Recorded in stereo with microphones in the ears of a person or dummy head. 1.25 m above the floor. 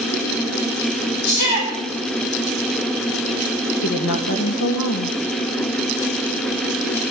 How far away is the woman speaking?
About 2.0 m.